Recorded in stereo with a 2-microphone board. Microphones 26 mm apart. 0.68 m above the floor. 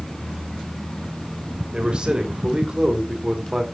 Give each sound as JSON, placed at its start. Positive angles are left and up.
{"t": 1.7, "sound": "a man speaking", "side_deg": -35, "distance_m": 3.0}